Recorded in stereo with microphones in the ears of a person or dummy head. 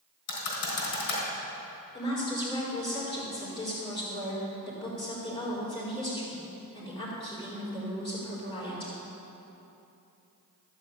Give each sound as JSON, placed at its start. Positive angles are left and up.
{"t": 0.3, "sound": "typing on a keyboard", "side_deg": 70, "distance_m": 3.5}
{"t": 1.9, "sound": "a woman speaking", "side_deg": 25, "distance_m": 4.0}